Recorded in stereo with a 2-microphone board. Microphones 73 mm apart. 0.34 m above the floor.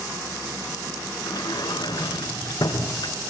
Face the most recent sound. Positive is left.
turn(degrees=75)  # may be behind; listen again after turning